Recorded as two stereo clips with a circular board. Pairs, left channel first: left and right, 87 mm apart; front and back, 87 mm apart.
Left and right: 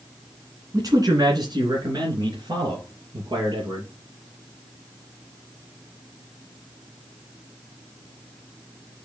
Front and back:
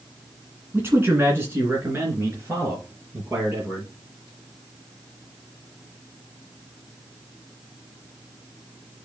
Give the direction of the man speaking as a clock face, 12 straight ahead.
4 o'clock.